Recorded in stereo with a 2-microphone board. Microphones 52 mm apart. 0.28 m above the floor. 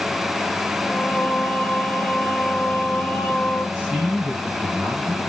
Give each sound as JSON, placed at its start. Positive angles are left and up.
{"t": 0.8, "sound": "singing", "side_deg": 25, "distance_m": 2.0}
{"t": 3.8, "sound": "a man speaking", "side_deg": -20, "distance_m": 1.8}